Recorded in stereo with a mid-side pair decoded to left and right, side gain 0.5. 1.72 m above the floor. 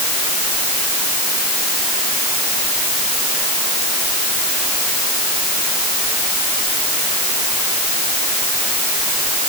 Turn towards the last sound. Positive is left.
No sound to turn to.